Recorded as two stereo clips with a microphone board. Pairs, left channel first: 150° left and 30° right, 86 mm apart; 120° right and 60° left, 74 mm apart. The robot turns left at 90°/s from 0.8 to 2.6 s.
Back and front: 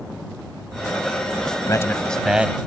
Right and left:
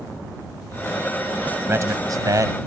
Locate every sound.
1.6 s a man speaking: 115° left; by 2.6 s 30° left